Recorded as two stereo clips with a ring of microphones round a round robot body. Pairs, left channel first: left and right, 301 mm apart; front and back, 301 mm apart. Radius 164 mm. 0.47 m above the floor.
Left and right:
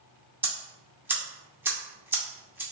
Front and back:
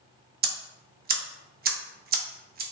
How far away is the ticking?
About 0.6 m.